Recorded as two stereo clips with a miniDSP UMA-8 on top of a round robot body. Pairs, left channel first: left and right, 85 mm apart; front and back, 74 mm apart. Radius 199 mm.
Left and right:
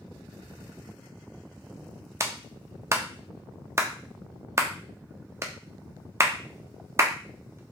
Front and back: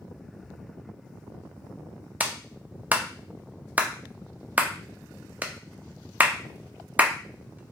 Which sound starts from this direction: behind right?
A clap, at 2.2 s.